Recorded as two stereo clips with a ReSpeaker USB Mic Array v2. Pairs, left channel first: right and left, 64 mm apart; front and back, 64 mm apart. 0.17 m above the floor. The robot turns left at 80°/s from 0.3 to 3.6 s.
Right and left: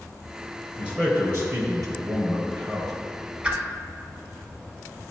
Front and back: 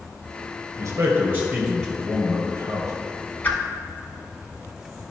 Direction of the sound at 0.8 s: 165° left.